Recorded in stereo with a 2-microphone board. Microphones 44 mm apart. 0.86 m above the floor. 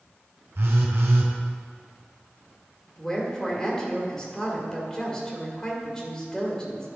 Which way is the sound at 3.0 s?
15° left (ahead or behind).